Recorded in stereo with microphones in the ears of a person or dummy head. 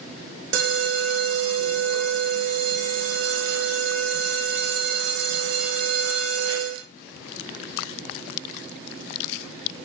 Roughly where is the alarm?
Right.